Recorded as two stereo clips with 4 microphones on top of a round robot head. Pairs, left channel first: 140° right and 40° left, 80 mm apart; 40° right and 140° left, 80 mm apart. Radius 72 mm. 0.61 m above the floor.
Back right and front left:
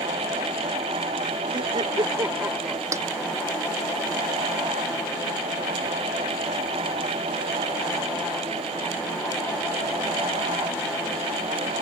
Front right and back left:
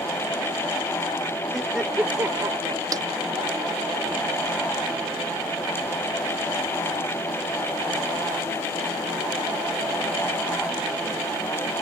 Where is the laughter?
45° left; by 2.8 s 125° left.